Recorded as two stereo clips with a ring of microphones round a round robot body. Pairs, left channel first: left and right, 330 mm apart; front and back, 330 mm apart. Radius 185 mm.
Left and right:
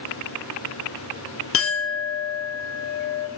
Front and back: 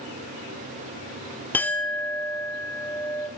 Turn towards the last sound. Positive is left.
turn(degrees=80)